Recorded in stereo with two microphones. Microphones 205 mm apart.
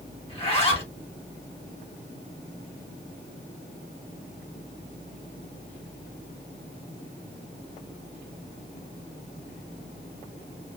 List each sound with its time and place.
0.3 s a zipper: 30° left (ahead or behind), 1.4 m